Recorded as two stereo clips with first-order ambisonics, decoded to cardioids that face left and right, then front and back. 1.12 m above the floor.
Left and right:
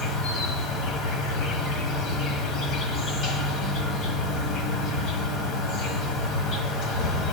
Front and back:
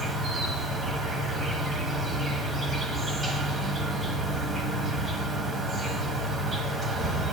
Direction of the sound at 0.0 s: 110° left.